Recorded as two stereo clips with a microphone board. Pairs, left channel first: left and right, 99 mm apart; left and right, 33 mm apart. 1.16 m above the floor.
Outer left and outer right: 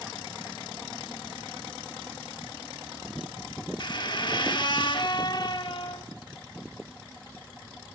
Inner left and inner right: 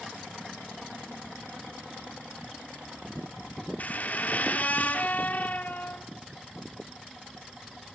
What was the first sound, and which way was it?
A squeak, 50° left (ahead or behind).